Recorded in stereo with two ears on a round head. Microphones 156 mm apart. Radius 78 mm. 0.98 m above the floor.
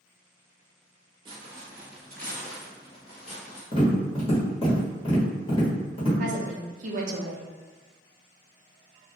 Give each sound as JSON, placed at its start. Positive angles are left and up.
{"t": 1.2, "sound": "footsteps", "side_deg": -30, "distance_m": 1.1}
{"t": 3.7, "sound": "tapping", "side_deg": 35, "distance_m": 0.9}
{"t": 6.2, "sound": "a woman speaking", "side_deg": -45, "distance_m": 0.5}